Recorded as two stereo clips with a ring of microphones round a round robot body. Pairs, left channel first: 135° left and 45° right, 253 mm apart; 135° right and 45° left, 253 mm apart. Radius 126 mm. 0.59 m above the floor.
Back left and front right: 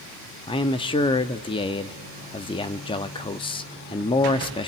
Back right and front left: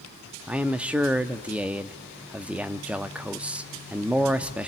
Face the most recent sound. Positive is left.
turn(degrees=120)